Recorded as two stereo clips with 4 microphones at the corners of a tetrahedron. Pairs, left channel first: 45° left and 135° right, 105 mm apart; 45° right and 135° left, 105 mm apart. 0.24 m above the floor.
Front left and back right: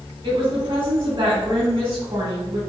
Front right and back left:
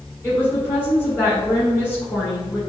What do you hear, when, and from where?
0.2 s a woman speaking: 105° right, 1.8 m